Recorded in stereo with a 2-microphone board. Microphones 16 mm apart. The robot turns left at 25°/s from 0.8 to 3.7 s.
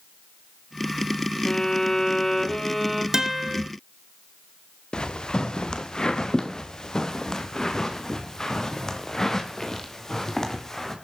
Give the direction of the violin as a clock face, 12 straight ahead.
11 o'clock.